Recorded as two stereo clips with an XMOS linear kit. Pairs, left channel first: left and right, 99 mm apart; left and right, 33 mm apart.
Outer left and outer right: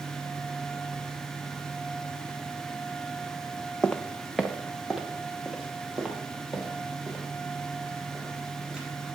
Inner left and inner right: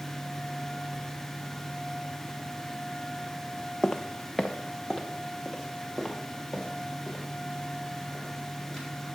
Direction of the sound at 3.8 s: 10° left (ahead or behind).